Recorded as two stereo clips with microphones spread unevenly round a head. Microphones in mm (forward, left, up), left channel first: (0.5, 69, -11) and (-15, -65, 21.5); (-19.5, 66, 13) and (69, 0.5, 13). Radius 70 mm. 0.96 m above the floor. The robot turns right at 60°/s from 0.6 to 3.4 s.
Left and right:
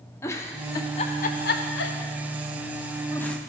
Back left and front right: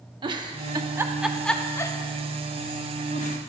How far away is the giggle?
About 0.7 m.